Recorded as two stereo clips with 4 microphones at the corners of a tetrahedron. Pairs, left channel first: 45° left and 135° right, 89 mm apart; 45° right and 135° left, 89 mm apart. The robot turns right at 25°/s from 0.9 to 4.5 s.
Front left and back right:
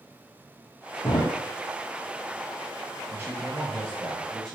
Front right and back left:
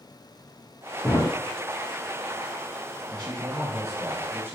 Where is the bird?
No bird in this recording.